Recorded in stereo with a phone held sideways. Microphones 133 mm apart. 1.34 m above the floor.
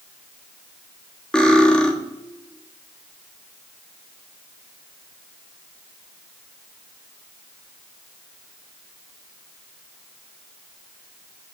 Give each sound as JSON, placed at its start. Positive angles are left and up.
{"t": 1.3, "sound": "cutlery clinking", "side_deg": 5, "distance_m": 1.4}